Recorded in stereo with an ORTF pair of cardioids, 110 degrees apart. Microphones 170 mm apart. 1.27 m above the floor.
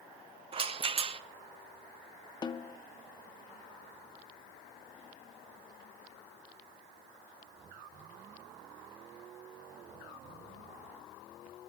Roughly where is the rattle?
Ahead right.